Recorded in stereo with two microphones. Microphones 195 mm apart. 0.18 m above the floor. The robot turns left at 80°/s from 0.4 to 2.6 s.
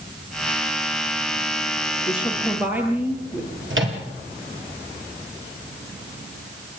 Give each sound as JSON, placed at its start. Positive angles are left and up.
{"t": 2.1, "sound": "a woman speaking", "azimuth_deg": 35, "distance_m": 4.0}
{"t": 3.7, "sound": "a microwave", "side_deg": -75, "distance_m": 3.0}